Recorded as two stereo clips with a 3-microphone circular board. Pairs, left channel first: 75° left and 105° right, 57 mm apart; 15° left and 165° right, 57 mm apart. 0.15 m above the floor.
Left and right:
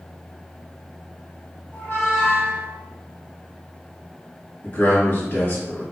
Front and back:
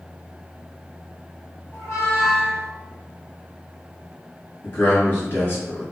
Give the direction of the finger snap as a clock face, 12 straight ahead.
No finger snap in this recording.